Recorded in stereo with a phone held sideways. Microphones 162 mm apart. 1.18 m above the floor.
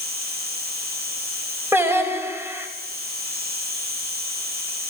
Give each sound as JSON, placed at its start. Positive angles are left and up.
{"t": 0.0, "sound": "an insect", "side_deg": -75, "distance_m": 8.5}
{"t": 1.7, "sound": "singing", "side_deg": -15, "distance_m": 4.5}